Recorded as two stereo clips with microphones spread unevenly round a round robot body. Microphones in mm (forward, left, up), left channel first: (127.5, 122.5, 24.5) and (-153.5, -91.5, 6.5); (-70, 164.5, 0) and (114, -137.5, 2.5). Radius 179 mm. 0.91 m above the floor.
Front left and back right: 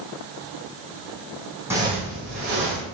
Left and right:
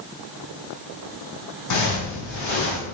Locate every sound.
1.7 s footsteps: 135° left, 1.6 m; by 2.8 s 175° right, 1.6 m